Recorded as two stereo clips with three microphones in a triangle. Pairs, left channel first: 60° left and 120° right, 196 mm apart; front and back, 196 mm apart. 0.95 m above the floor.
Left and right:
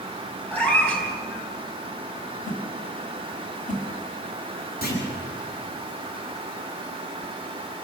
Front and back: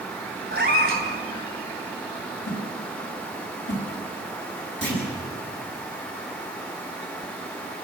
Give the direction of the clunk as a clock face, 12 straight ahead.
11 o'clock.